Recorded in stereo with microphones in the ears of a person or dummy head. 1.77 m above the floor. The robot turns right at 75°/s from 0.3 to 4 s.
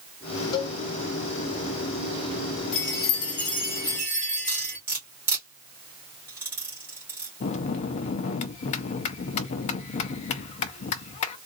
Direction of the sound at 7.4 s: 40° left (ahead or behind).